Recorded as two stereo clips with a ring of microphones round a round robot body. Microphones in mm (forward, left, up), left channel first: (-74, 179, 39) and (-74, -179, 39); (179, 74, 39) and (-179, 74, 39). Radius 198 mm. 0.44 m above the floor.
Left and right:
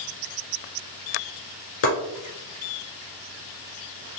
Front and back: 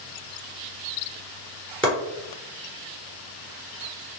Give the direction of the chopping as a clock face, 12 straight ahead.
9 o'clock.